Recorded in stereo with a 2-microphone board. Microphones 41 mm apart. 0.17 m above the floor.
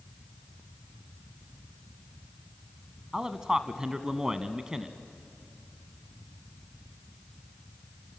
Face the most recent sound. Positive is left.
turn(degrees=-15)  # may be behind; listen again after turning